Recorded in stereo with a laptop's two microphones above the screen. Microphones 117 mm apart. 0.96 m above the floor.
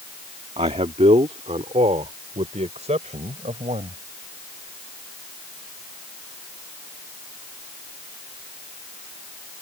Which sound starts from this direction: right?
A man speaking, at 0.6 s.